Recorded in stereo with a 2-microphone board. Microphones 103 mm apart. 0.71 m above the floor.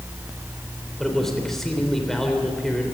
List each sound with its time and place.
1.0 s a man speaking: 5° left (ahead or behind), 3 m